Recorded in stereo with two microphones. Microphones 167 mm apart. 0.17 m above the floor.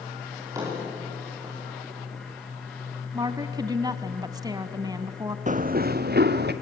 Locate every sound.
0.3 s a drawer: 20° right (ahead or behind), 9.5 m
3.1 s a woman speaking: 25° right (ahead or behind), 1.1 m
5.5 s running footsteps: 45° right (ahead or behind), 0.7 m; by 6.5 s 80° right, 1.7 m